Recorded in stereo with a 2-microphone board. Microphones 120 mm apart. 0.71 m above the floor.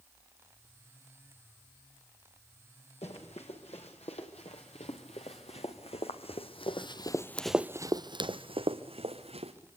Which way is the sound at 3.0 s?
60° left (ahead or behind).